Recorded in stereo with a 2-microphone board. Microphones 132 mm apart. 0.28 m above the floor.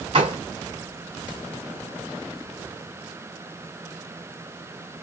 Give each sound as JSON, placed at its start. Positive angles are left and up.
{"t": 0.1, "sound": "a gunshot", "side_deg": -40, "distance_m": 2.0}